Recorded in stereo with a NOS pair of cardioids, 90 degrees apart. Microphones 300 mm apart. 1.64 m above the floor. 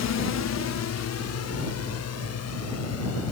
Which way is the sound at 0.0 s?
60° left.